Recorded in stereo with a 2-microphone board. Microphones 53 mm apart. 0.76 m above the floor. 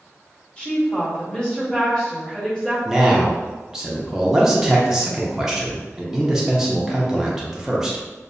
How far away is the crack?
I don't hear a crack.